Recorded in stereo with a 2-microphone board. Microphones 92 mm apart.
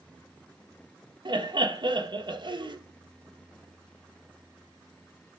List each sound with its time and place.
1.2 s laughter: 55° right (ahead or behind), 1.5 m